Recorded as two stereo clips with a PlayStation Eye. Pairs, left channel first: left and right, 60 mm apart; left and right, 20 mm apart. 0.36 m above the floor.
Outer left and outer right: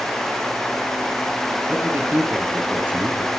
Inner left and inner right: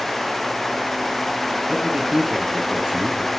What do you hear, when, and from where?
1.7 s a man speaking: 35° right (ahead or behind), 6.5 m